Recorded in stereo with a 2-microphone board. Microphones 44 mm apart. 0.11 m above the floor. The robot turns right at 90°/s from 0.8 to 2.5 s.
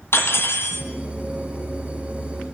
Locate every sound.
0.1 s cutlery clinking: 65° left (ahead or behind), 1.8 m; by 0.9 s 60° left (ahead or behind), 1.8 m